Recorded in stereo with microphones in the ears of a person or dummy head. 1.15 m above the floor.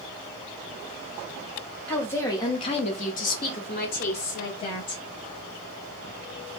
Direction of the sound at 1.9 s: 10° left (ahead or behind).